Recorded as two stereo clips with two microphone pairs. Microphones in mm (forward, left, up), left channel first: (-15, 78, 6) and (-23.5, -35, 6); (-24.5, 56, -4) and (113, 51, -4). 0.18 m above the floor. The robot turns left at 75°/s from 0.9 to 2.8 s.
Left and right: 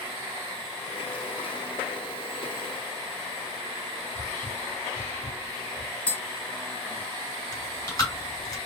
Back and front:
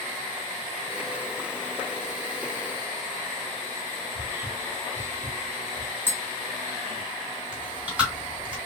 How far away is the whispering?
About 1.1 m.